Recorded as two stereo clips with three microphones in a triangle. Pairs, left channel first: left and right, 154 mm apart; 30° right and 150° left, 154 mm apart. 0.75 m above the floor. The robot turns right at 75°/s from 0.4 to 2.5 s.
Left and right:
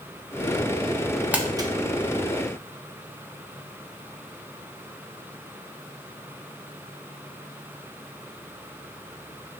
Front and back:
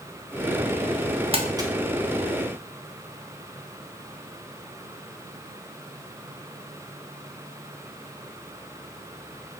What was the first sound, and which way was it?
Crumpling, 170° right.